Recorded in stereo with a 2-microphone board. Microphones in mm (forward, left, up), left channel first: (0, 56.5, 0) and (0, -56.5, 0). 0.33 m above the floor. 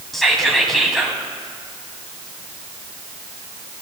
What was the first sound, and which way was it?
Whispering, centre (ahead or behind).